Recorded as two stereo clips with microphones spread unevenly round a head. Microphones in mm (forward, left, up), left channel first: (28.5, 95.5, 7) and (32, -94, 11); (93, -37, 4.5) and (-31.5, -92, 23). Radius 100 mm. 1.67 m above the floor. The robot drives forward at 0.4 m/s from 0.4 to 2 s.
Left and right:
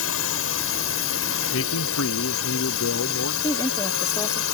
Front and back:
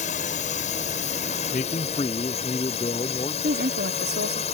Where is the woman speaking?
170° left.